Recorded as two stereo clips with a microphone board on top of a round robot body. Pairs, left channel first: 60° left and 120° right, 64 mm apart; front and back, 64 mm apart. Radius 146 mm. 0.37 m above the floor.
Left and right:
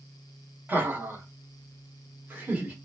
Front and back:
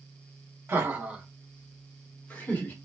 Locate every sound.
0.7 s laughter: 160° right, 0.9 m; by 2.7 s 60° right, 1.4 m